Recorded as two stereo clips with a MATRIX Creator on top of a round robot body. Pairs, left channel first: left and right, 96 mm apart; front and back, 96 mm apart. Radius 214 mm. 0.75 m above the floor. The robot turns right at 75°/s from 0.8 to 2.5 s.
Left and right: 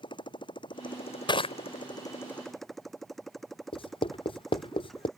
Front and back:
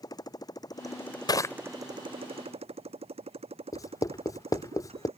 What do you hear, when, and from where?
0.0 s a motorcycle: 50° left; by 5.2 s straight behind
1.3 s crushing: 45° left; by 1.6 s 65° left
3.7 s writing: 55° left